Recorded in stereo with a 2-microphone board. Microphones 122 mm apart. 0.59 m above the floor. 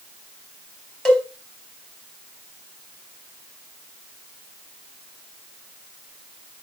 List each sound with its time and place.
1.1 s a cowbell: 5° left (ahead or behind), 3.5 m